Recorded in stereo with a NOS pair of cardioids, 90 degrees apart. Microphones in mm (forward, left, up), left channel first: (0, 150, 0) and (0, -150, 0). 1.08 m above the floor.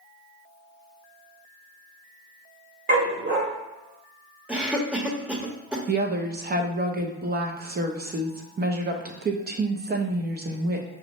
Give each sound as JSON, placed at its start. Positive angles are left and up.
{"t": 2.9, "sound": "a dog barking", "azimuth_deg": -40, "distance_m": 1.8}
{"t": 4.5, "sound": "a cough", "azimuth_deg": -5, "distance_m": 1.1}
{"t": 5.9, "sound": "a woman speaking", "azimuth_deg": -30, "distance_m": 0.8}